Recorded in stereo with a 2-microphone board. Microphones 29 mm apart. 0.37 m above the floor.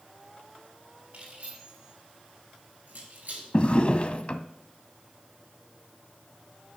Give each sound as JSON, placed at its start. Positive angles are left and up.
{"t": 1.1, "sound": "keys jangling", "side_deg": -50, "distance_m": 4.5}
{"t": 3.5, "sound": "a drawer", "side_deg": 40, "distance_m": 0.6}